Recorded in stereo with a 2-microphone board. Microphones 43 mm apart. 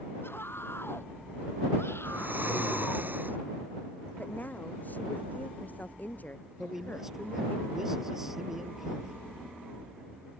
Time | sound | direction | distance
0.2 | a scream | 60° left (ahead or behind) | ?
2.0 | snoring | 45° right (ahead or behind) | ?
4.2 | a woman speaking | 40° left (ahead or behind) | ?
6.6 | a man speaking | 10° right (ahead or behind) | ?